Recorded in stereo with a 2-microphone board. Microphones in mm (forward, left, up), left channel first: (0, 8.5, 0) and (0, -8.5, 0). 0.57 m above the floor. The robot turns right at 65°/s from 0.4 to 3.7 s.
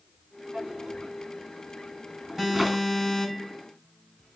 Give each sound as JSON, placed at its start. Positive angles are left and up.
{"t": 0.5, "sound": "a drawer", "side_deg": -35, "distance_m": 2.5}
{"t": 2.4, "sound": "an alarm", "azimuth_deg": -25, "distance_m": 4.0}